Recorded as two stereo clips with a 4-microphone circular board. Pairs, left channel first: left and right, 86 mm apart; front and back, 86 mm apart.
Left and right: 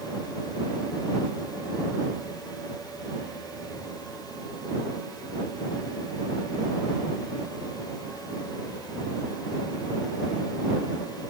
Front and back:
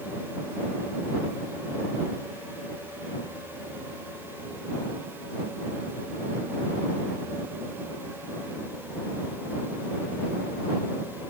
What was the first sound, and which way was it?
Only background noise.